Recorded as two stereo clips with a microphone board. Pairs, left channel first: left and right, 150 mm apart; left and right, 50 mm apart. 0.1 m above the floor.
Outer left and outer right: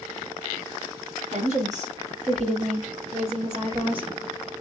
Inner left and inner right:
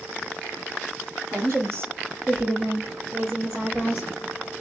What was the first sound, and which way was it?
A woman speaking, 55° right (ahead or behind).